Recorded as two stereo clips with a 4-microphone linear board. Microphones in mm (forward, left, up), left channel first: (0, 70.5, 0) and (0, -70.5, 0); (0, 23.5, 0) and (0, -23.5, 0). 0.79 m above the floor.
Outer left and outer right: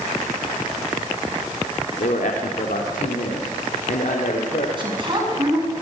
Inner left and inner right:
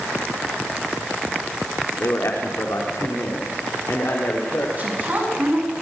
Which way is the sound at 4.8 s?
35° right (ahead or behind).